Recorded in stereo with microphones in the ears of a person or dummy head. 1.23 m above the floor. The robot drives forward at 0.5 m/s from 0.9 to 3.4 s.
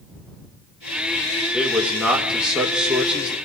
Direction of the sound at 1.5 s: 5° right (ahead or behind).